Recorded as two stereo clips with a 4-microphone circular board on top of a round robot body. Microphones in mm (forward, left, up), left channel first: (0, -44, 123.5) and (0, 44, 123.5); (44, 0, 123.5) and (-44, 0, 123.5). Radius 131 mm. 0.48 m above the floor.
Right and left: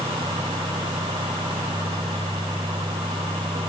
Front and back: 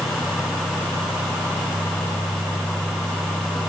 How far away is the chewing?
No chewing in this recording.